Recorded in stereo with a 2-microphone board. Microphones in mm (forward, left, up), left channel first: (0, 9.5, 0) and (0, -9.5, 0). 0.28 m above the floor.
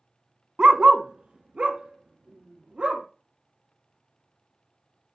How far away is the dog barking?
About 0.6 m.